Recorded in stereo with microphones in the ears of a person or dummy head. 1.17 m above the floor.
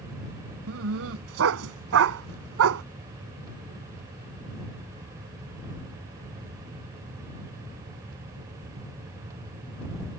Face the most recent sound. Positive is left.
turn(degrees=-80)